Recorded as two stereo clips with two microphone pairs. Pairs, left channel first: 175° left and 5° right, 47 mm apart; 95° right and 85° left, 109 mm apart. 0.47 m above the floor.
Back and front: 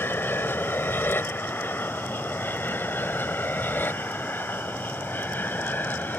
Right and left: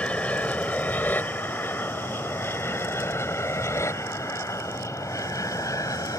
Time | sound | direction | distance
0.0 | an aircraft | 170° right | ?